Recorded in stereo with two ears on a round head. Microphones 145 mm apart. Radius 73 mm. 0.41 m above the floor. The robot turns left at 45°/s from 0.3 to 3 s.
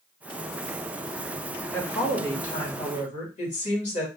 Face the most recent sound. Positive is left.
turn(degrees=105)